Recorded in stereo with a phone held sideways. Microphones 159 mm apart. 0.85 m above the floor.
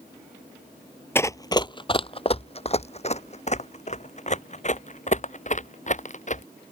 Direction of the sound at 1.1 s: 15° left (ahead or behind).